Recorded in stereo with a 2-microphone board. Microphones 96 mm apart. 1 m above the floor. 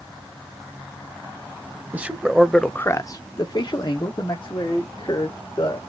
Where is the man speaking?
15° right (ahead or behind), 0.9 m; by 5.8 s 45° left (ahead or behind), 2.5 m.